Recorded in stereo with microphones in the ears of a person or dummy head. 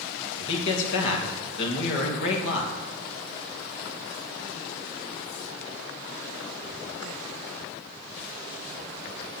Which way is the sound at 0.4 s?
65° left (ahead or behind).